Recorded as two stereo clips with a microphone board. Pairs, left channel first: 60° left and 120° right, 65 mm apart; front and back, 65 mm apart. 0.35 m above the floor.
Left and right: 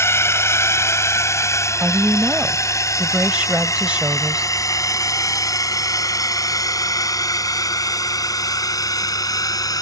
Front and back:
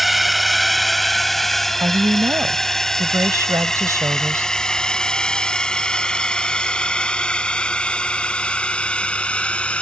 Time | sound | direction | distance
0.0 | a drone | 90° left | ?
1.8 | a woman speaking | 175° left | ?